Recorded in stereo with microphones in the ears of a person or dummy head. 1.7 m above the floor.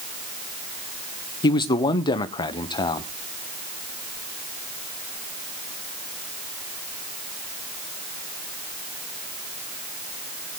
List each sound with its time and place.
1.4 s a man speaking: 25° left (ahead or behind), 0.7 m